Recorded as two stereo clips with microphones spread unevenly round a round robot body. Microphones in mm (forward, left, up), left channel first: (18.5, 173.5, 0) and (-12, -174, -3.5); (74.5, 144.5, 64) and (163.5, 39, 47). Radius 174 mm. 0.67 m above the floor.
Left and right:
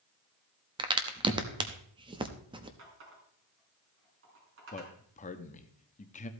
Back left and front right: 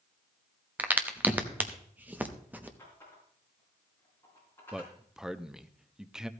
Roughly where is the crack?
Ahead right.